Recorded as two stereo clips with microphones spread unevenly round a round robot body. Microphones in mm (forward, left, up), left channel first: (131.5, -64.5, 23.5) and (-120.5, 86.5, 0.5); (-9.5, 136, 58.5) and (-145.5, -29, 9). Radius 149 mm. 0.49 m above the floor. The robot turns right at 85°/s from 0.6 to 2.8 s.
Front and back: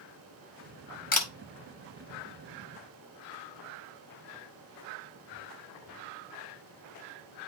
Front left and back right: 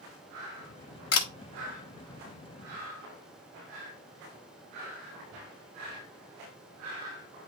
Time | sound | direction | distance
1.1 | a camera shutter | 25° left | 1.3 m